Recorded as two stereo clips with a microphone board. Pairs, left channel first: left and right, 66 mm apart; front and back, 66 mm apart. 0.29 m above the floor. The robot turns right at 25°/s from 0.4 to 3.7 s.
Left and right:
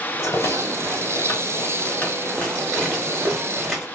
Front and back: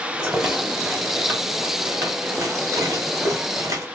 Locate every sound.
0.2 s a rattle: 100° left, 2.5 m; by 3.9 s 175° right, 2.5 m